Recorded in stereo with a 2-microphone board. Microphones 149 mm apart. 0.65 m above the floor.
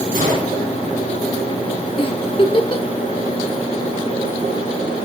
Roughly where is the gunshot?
Right.